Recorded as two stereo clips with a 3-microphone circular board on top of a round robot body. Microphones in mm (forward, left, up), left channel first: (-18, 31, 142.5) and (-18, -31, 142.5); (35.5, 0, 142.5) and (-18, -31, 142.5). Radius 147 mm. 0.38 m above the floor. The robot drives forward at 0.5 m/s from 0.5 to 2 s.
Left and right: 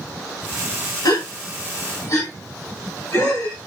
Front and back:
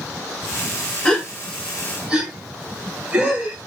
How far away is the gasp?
About 0.7 m.